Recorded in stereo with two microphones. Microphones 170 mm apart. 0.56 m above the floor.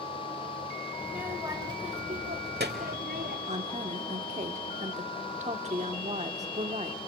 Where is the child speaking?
5° right (ahead or behind), 1.8 m; by 3.4 s 70° right (ahead or behind), 1.7 m.